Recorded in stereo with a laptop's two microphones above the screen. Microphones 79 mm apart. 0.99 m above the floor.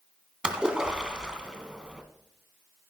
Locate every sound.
0.4 s a splash: 10° right (ahead or behind), 2 m